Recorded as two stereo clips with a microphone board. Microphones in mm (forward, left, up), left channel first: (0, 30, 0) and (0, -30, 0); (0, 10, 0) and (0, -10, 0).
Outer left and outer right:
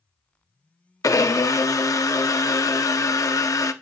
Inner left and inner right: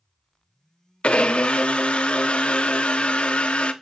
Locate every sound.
1.0 s a blender: 65° left (ahead or behind), 0.6 m